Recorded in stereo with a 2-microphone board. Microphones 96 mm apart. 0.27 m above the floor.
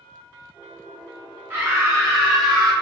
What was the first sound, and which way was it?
A scream, 25° right (ahead or behind).